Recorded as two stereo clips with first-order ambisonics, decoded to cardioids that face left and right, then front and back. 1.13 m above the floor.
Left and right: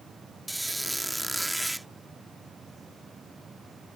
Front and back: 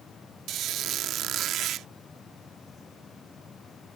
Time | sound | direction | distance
0.5 | a squeak | 175° right | ?